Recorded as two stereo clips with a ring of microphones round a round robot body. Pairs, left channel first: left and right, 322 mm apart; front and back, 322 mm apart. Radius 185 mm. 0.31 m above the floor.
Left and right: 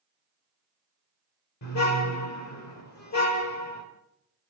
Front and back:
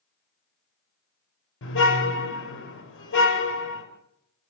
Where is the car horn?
50° left, 5 m.